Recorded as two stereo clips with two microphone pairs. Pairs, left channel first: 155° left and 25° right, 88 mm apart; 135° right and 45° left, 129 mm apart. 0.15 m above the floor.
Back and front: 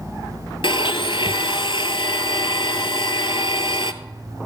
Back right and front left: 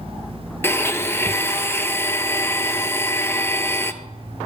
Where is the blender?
150° left, 1.0 m.